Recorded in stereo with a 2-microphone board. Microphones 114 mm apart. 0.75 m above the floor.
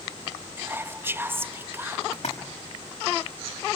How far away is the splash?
About 5.5 m.